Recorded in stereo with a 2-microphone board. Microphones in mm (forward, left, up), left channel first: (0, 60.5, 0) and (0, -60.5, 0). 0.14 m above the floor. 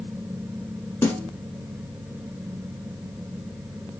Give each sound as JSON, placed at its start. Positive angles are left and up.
{"t": 1.0, "sound": "a snare drum", "side_deg": 20, "distance_m": 1.4}